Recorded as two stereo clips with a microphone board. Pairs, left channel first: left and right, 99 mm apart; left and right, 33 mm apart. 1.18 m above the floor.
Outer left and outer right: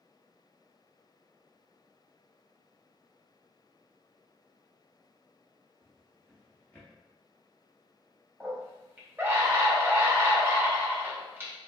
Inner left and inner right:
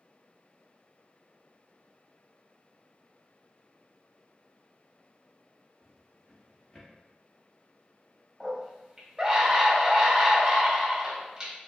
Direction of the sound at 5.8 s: 15° left (ahead or behind).